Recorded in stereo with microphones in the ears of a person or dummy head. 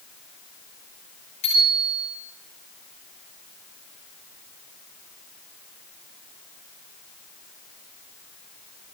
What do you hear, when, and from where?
1.4 s a bicycle bell: 40° left (ahead or behind), 10 m